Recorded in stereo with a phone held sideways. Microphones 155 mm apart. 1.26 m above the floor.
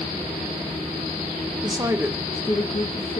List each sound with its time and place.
1.6 s a woman speaking: 30° right (ahead or behind), 1.3 m; by 3.2 s 60° left (ahead or behind), 1.4 m